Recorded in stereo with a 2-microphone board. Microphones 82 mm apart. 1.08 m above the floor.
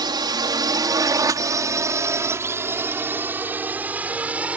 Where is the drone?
60° right (ahead or behind); by 4.6 s 15° right (ahead or behind).